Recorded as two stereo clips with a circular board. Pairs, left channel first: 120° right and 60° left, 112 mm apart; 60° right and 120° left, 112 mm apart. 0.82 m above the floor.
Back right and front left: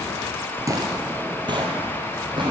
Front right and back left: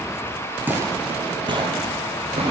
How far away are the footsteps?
About 0.8 m.